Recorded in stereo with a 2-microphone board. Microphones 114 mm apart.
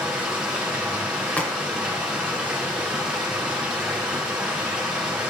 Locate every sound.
0.0 s running water: 10° right (ahead or behind), 3 m
1.4 s a crack: 15° left (ahead or behind), 1.5 m